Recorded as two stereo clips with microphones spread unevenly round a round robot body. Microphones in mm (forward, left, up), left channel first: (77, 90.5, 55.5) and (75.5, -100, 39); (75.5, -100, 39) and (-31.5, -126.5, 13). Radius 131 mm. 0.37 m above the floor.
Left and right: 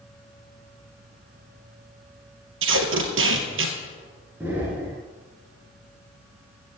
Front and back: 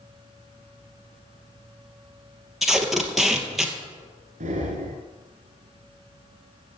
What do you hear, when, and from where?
2.6 s tape being pulled: 75° right, 2.5 m
4.4 s breathing: 175° right, 1.6 m